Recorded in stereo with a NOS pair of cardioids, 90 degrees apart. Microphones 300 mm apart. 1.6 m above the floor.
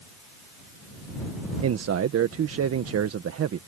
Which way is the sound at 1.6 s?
50° right.